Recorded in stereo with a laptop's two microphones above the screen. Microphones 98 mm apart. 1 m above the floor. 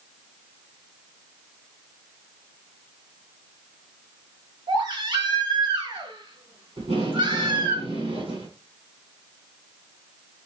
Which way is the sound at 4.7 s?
45° right (ahead or behind).